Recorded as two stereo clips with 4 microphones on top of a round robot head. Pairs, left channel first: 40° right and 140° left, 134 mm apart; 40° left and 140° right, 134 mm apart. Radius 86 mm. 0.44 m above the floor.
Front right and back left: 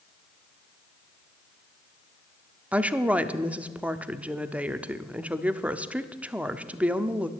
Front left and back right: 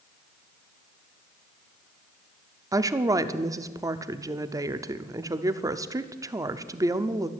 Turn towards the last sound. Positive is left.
turn(degrees=-150)